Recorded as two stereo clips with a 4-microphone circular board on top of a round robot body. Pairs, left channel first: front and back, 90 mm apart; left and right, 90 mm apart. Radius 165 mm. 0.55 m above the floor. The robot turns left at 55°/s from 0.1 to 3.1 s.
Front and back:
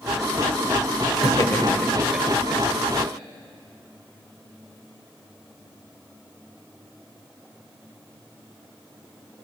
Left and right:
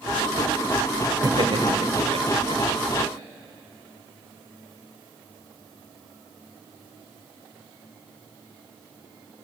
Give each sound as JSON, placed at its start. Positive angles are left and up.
{"t": 1.2, "sound": "laughter", "azimuth_deg": -45, "distance_m": 2.5}